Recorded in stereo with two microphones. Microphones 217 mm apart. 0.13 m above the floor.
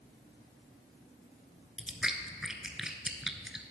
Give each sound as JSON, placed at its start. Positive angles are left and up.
{"t": 1.8, "sound": "chewing", "side_deg": 0, "distance_m": 0.6}